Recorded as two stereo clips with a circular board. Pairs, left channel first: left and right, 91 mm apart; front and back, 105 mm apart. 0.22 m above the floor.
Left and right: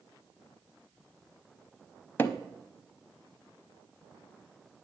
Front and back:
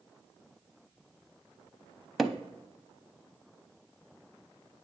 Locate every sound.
2.2 s hammering: 90° left, 0.6 m